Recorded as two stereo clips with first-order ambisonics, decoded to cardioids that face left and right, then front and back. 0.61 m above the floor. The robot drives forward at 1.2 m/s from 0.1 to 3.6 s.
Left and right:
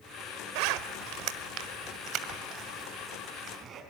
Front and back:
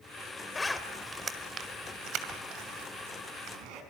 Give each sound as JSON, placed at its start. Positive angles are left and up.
{"t": 0.6, "sound": "a zipper", "azimuth_deg": -80, "distance_m": 1.5}